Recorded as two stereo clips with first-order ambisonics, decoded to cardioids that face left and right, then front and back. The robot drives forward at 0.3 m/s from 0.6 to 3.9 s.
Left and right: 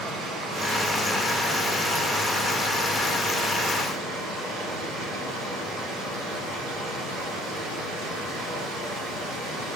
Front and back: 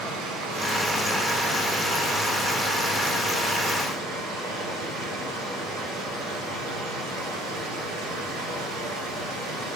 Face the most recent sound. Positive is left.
turn(degrees=-155)